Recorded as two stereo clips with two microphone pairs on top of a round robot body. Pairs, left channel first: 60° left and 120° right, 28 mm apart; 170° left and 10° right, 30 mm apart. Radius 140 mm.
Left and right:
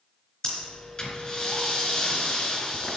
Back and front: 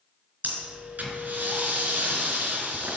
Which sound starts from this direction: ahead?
Breathing, at 0.4 s.